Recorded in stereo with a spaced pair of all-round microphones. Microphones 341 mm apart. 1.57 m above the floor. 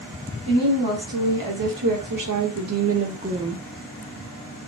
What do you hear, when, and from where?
0.5 s a woman speaking: 75° right (ahead or behind), 1.7 m; by 3.6 s 5° right (ahead or behind), 0.6 m